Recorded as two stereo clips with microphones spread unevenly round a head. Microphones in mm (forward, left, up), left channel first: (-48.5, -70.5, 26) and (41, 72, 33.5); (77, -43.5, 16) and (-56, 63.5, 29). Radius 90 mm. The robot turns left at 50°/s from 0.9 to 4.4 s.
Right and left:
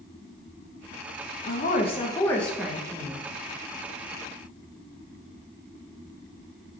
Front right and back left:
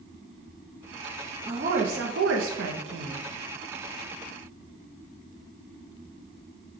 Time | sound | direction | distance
1.5 | a woman speaking | 160° right | 0.6 m